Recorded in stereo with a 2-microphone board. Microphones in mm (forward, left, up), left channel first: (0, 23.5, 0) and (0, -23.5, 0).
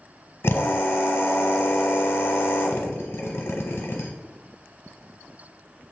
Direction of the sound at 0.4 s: 65° left (ahead or behind).